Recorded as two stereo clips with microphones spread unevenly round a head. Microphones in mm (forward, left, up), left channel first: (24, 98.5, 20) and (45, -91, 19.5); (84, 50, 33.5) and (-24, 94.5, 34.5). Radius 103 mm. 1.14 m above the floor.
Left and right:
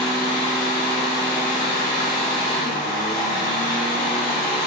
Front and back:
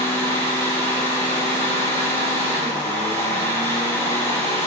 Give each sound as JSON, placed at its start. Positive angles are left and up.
{"t": 0.0, "sound": "a fan", "azimuth_deg": 35, "distance_m": 1.4}